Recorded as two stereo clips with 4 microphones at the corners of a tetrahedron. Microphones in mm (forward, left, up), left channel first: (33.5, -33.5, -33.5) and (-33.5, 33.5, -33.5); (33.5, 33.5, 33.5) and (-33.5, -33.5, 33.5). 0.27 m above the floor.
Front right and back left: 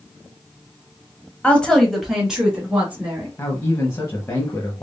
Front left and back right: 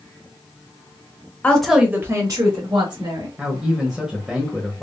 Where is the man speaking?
55° right, 1.0 m.